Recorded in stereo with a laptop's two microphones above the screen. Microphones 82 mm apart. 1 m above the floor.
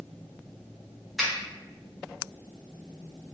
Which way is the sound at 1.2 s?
5° right (ahead or behind).